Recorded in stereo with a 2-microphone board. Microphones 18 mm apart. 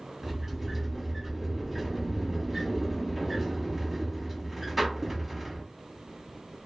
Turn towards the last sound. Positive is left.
turn(degrees=-10)  # may be behind; listen again after turning